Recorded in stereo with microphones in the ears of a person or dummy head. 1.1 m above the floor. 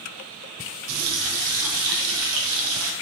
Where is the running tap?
80° right, 0.6 m.